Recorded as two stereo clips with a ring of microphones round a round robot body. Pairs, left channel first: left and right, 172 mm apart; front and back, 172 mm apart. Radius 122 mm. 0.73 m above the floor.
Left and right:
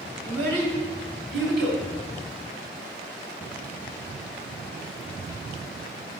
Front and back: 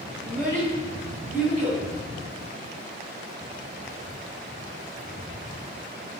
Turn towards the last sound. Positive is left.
turn(degrees=-85)